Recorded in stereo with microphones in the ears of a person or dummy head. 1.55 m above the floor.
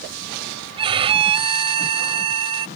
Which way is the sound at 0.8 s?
30° right (ahead or behind).